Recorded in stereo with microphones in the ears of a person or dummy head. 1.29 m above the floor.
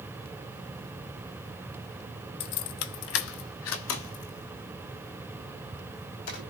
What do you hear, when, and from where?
2.4 s keys jangling: 30° left (ahead or behind), 0.8 m; by 6.4 s 65° left (ahead or behind), 5 m